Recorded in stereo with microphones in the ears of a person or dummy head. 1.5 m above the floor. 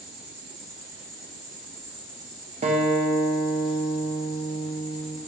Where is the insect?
25° right (ahead or behind), 1.8 m.